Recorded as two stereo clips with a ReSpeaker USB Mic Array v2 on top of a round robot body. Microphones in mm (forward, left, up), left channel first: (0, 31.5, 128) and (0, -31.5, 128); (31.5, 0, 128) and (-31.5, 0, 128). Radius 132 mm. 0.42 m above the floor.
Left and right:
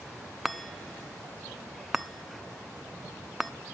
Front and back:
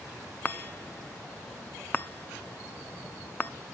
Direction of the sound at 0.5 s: 5° right.